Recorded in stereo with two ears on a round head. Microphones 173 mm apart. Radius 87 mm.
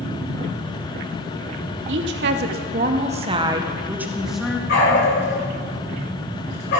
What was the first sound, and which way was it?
A woman speaking, 65° right (ahead or behind).